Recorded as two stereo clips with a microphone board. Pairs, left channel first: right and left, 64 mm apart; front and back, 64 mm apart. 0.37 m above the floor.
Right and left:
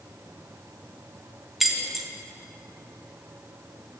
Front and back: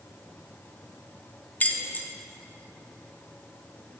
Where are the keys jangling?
5° left, 0.5 m.